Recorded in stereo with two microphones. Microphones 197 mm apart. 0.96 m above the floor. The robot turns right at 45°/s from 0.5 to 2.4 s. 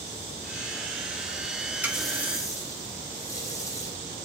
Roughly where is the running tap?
Centre.